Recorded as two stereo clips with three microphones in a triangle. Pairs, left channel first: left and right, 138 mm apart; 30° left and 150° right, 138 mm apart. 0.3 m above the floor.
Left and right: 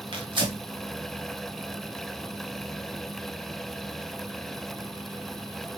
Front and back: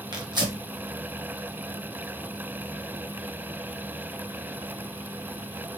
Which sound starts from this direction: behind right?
Tearing paper, at 0.1 s.